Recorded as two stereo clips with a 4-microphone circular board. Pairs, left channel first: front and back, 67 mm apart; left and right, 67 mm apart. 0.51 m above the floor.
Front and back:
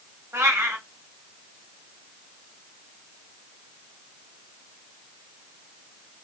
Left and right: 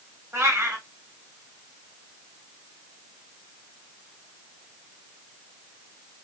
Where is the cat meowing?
135° right, 1.2 m.